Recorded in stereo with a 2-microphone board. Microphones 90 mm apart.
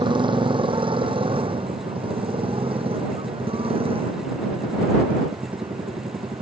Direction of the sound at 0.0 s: 65° right (ahead or behind).